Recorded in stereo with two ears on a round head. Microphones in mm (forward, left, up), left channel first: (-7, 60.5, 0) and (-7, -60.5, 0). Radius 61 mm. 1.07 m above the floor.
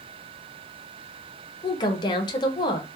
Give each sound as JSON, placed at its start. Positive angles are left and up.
{"t": 1.6, "sound": "a woman speaking", "side_deg": 30, "distance_m": 0.5}